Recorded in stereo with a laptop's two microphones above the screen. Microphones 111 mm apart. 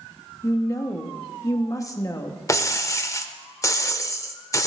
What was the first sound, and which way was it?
A woman speaking, 30° left (ahead or behind).